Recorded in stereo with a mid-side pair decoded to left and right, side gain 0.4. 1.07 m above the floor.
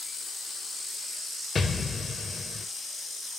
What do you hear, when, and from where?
1.6 s an explosion: 35° left, 0.6 m